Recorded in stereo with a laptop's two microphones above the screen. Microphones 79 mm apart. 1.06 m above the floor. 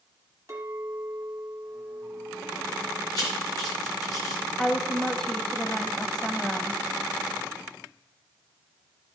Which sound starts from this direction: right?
A clink, at 0.5 s.